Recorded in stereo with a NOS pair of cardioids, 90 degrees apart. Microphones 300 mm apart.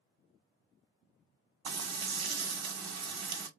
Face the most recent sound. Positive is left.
turn(degrees=-60)